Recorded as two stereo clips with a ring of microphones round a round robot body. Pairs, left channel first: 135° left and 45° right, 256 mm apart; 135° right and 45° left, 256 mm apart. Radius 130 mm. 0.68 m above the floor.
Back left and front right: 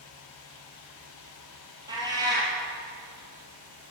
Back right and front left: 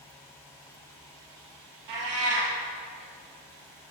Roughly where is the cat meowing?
Ahead left.